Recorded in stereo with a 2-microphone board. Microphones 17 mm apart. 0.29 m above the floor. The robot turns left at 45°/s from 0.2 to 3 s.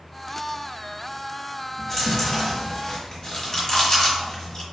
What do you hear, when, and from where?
1.8 s chewing: 10° left (ahead or behind), 1.2 m; by 4.6 s 40° left (ahead or behind), 1.2 m